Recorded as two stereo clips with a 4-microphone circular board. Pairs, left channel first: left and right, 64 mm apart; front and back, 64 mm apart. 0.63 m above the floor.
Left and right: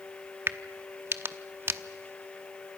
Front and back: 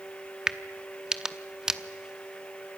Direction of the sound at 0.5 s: 105° right.